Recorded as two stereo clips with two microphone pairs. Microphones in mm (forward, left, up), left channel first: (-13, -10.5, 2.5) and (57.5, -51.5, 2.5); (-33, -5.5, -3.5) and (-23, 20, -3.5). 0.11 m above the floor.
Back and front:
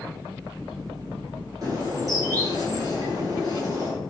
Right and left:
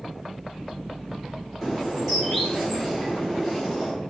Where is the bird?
35° right, 1.5 m.